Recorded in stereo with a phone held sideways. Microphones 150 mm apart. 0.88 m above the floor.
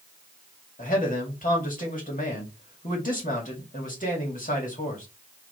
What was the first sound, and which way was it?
A man speaking, 60° left (ahead or behind).